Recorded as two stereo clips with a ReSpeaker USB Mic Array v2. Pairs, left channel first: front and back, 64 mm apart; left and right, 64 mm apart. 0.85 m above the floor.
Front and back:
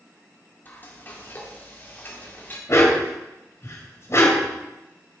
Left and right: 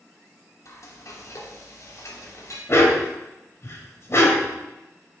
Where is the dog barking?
45° left, 2.0 m.